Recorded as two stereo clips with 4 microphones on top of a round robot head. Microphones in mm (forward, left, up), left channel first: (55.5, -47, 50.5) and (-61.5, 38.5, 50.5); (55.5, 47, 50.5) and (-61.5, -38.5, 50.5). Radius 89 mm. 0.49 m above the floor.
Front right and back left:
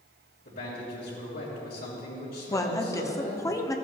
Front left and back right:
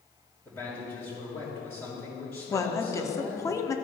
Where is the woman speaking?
Straight ahead, 0.9 m.